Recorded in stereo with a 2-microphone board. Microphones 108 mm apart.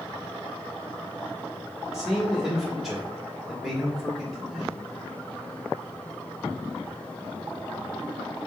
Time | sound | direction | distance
1.9 | a man speaking | centre (ahead or behind) | 1.1 m